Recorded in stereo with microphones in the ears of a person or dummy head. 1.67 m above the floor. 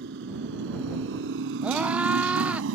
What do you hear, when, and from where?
0.0 s a motorcycle: 70° right (ahead or behind); by 2.8 s 75° right (ahead or behind)
1.6 s a scream: 10° right (ahead or behind)